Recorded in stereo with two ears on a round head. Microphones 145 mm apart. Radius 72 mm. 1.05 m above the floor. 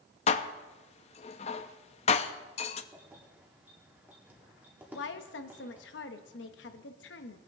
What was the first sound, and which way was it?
Dishes clattering, 40° left (ahead or behind).